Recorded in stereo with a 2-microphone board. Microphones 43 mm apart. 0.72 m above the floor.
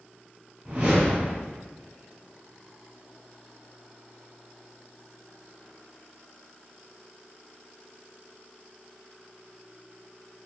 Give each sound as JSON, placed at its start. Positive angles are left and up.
{"t": 0.7, "sound": "a whoosh", "side_deg": -40, "distance_m": 1.6}